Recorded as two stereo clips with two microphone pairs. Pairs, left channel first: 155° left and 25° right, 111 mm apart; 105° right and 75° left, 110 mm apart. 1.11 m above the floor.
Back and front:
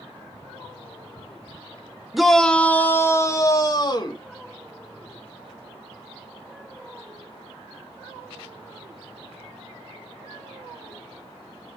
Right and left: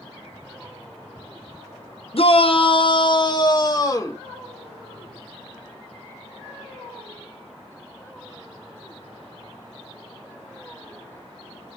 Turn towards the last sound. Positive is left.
turn(degrees=-160)